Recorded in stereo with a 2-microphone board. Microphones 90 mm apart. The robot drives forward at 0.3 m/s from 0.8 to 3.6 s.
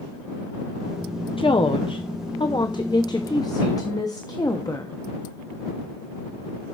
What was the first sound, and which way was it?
A woman speaking, 80° left.